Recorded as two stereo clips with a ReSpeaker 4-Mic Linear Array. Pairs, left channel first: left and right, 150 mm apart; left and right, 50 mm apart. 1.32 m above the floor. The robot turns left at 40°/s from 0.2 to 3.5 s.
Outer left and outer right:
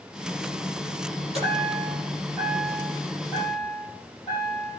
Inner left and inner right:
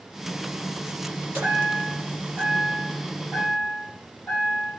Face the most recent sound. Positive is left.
turn(degrees=140)